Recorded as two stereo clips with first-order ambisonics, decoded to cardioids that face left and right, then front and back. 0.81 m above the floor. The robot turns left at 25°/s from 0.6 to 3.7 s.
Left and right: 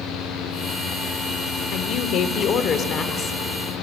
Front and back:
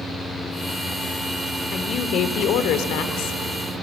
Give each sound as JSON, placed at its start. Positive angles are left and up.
{"t": 1.7, "sound": "a woman speaking", "azimuth_deg": 60, "distance_m": 1.9}